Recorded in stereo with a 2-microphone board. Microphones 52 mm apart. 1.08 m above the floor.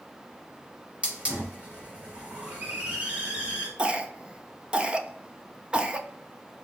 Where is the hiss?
25° right (ahead or behind), 1.6 m.